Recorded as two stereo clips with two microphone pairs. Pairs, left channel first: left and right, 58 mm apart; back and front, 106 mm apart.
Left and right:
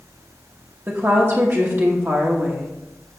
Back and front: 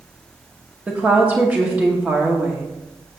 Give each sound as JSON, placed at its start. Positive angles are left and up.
{"t": 0.9, "sound": "a woman speaking", "azimuth_deg": -70, "distance_m": 0.9}